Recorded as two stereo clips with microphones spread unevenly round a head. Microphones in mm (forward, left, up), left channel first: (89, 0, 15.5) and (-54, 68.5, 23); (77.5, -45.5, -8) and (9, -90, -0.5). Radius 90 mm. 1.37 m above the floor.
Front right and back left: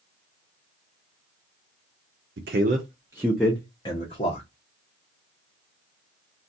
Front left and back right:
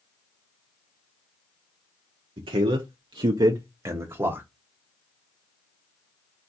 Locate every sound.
2.4 s a man speaking: 175° right, 0.6 m; by 4.5 s 80° right, 0.9 m